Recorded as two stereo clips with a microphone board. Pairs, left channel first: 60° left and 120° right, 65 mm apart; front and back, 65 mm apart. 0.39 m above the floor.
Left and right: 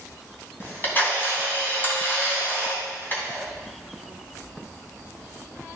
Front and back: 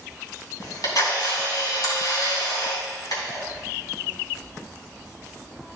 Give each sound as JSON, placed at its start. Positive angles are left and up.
{"t": 0.6, "sound": "a camera shutter", "azimuth_deg": 5, "distance_m": 3.0}